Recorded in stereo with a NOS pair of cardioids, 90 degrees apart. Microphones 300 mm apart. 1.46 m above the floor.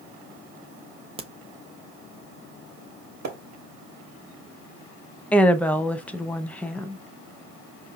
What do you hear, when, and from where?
1.2 s a crack: 20° right, 0.8 m
3.2 s a splash: 65° right, 1.4 m
5.3 s a woman speaking: 5° left, 0.7 m